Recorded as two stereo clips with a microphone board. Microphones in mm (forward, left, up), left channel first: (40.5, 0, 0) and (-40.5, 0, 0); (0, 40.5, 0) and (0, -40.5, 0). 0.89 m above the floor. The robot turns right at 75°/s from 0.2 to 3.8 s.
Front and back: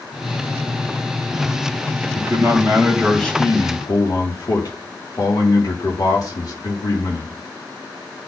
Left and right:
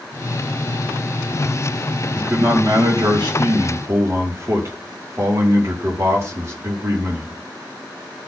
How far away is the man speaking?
About 1.8 m.